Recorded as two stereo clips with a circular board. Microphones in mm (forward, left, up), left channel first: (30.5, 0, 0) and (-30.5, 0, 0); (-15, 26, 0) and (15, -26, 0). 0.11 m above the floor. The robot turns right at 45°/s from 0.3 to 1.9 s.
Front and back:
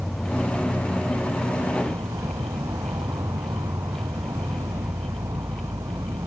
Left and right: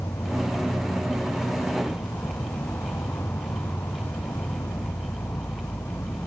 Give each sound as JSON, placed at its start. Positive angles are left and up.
{"t": 0.0, "sound": "an insect", "azimuth_deg": 95}